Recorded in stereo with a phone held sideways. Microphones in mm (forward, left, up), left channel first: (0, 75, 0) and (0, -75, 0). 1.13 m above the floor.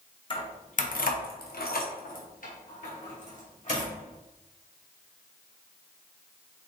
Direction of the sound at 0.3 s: 35° left (ahead or behind).